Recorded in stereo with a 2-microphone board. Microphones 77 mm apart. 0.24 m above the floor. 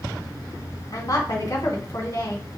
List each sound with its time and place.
0.9 s a woman speaking: 45° left (ahead or behind), 2.0 m